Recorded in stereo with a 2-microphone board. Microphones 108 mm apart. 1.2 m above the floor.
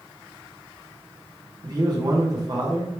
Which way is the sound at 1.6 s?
40° right (ahead or behind).